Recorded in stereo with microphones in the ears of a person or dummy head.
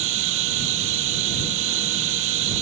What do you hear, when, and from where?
0.0 s running water: 65° right (ahead or behind)